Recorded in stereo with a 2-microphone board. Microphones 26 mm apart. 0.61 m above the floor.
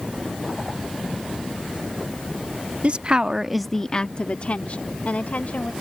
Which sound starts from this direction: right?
A woman speaking, at 2.8 s.